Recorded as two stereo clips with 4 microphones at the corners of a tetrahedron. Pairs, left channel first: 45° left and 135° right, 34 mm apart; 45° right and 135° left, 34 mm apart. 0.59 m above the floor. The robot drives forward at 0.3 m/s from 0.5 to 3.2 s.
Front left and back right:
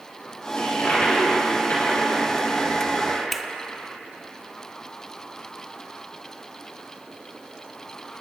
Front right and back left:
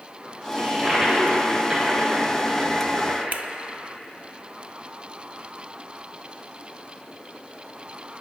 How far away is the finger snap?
About 0.5 m.